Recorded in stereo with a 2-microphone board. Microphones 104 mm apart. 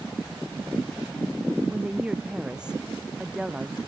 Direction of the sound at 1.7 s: 10° right (ahead or behind).